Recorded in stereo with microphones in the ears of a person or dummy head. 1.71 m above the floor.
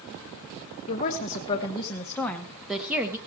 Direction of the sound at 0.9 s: 40° left (ahead or behind).